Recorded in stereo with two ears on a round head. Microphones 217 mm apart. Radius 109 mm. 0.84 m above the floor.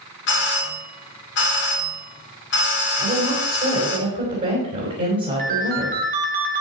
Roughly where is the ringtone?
Right.